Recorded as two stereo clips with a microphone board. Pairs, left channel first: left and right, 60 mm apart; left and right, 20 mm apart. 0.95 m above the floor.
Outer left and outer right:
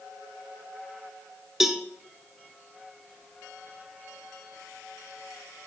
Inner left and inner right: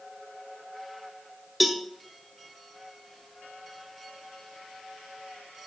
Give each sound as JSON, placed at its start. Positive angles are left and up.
{"t": 1.6, "sound": "a cowbell", "side_deg": -5, "distance_m": 0.8}